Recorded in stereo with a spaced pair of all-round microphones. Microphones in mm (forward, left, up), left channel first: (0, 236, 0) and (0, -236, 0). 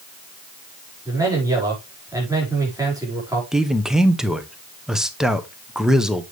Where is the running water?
I don't hear running water.